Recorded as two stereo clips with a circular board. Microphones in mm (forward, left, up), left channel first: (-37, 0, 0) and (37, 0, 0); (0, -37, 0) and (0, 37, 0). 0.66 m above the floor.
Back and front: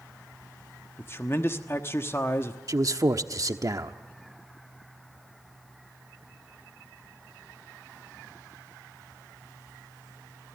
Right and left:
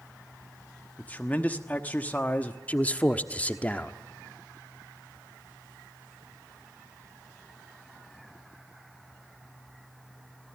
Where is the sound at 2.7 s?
25° right, 1.1 m.